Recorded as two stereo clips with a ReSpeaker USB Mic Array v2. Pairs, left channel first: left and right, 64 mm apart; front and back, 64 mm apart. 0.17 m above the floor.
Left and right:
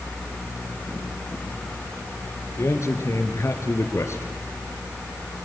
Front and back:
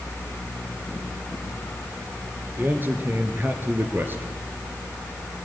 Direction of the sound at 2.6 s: 125° left.